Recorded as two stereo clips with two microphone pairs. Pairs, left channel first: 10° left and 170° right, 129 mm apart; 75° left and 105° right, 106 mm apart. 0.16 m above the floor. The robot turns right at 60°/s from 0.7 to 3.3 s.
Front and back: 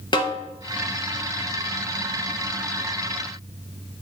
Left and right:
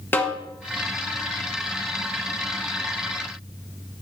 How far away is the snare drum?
About 1.0 m.